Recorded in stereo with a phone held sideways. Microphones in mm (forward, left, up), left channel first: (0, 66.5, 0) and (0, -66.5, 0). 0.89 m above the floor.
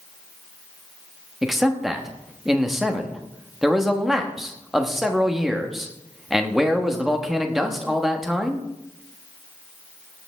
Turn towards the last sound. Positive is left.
turn(degrees=0)  # may be behind; listen again after turning